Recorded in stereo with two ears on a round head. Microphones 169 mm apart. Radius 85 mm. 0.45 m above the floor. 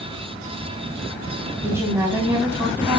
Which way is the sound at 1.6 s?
15° right (ahead or behind).